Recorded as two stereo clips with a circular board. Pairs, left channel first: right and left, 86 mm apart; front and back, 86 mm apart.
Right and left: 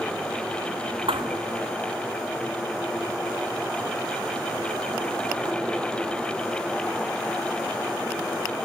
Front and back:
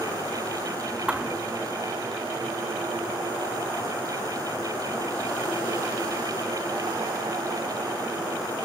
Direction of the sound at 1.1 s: 100° left.